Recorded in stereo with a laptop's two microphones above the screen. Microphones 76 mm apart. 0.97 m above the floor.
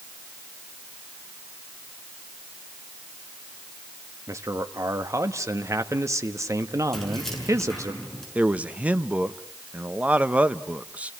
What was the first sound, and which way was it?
A man speaking, 45° right (ahead or behind).